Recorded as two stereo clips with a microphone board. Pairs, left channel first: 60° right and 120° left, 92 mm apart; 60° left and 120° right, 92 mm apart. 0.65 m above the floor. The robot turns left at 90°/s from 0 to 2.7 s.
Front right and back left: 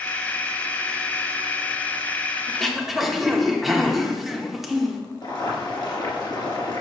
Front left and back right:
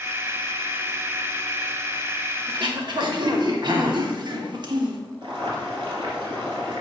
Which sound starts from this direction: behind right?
Throat clearing, at 2.5 s.